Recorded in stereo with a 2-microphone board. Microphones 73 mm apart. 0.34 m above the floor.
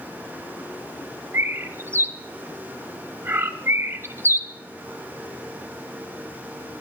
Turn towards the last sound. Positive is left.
turn(degrees=-35)  # may be behind; listen again after turning